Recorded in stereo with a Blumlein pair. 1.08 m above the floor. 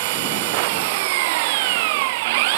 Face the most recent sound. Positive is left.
turn(degrees=-50)